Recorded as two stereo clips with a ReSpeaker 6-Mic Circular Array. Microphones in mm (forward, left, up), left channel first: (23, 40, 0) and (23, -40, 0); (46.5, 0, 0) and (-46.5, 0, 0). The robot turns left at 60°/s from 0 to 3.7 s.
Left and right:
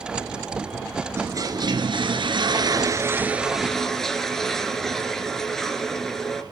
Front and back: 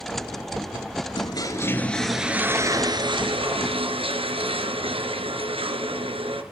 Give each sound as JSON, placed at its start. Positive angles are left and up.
{"t": 1.2, "sound": "a toilet flushing", "azimuth_deg": -35, "distance_m": 2.0}